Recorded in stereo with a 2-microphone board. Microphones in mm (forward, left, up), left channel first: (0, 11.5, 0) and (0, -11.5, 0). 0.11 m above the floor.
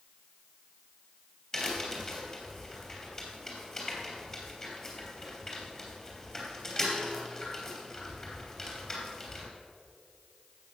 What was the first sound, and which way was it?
A crack, 20° left (ahead or behind).